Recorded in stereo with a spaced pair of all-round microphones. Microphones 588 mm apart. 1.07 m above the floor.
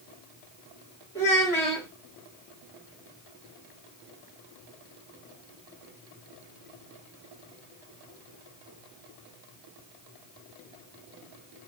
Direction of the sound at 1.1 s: 5° left (ahead or behind).